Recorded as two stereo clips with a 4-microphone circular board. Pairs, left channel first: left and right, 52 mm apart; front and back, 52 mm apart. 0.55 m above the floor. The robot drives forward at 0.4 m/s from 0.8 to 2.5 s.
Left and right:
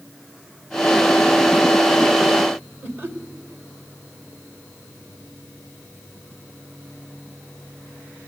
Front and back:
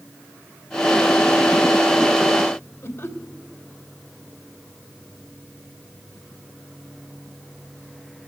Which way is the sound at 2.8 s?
45° right.